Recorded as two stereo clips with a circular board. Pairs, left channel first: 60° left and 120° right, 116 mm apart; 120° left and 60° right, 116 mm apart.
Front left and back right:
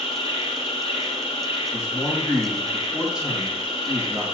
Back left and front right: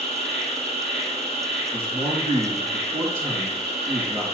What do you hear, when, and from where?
0.0 s an insect: 100° left, 1.4 m
1.7 s a man speaking: 155° left, 3.5 m